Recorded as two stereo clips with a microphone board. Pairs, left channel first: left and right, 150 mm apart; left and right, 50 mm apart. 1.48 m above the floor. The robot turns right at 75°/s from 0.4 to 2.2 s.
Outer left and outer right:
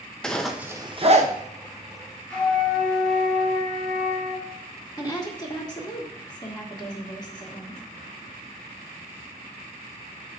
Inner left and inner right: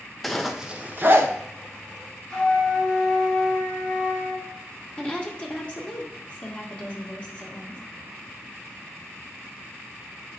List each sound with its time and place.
0.2 s a zipper: 5° left (ahead or behind), 0.7 m; by 1.3 s 55° right (ahead or behind), 0.7 m
2.3 s a flute: 10° left (ahead or behind), 2.5 m
5.0 s a woman speaking: 25° left (ahead or behind), 1.7 m